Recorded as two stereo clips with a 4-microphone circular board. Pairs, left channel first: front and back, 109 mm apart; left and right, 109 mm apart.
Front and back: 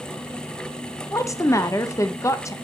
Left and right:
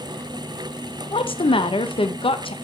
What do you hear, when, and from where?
1.1 s a woman speaking: 60° left, 0.6 m